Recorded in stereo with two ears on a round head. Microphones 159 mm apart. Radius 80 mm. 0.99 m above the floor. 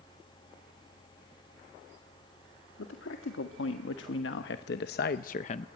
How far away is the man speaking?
About 1.9 m.